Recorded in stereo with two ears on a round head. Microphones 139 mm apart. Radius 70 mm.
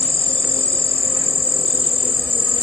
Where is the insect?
10° left (ahead or behind).